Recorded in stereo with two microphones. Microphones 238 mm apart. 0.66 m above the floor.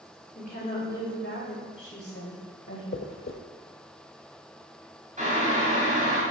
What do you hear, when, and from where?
0.3 s a woman speaking: 40° left (ahead or behind), 2.5 m; by 2.8 s 70° left (ahead or behind), 3.5 m
2.9 s a dropped coin: 60° left (ahead or behind), 0.8 m
5.2 s boiling: 30° right (ahead or behind), 2.5 m